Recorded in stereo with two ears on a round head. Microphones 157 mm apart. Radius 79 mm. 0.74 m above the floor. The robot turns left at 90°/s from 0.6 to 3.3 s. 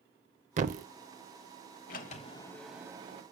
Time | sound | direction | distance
0.6 | a thud | 45° right (ahead or behind) | 0.5 m
1.9 | a sliding door | 75° left | 0.8 m